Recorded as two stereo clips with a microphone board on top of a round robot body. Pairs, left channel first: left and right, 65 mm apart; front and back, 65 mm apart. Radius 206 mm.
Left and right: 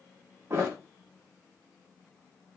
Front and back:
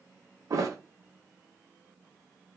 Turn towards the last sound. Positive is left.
turn(degrees=-145)